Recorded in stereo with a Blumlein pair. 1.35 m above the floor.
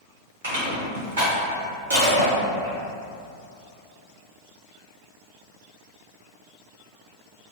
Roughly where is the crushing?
Right.